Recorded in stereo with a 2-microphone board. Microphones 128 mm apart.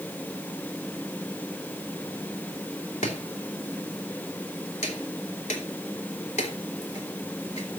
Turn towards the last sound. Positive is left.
turn(degrees=65)  # may be behind; listen again after turning